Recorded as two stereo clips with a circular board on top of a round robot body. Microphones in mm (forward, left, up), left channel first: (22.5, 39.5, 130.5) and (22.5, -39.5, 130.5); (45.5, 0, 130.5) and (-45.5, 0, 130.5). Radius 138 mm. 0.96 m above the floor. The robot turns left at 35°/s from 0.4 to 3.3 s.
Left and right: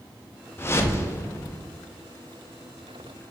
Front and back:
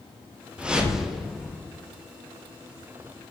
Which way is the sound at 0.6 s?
110° left.